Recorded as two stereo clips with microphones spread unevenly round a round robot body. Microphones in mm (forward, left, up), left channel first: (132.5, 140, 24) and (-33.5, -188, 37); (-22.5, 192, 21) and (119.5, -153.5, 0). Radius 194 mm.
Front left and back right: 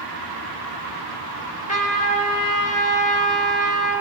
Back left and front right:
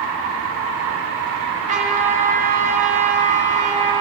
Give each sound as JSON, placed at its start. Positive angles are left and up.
{"t": 1.7, "sound": "a trumpet", "azimuth_deg": -5, "distance_m": 1.1}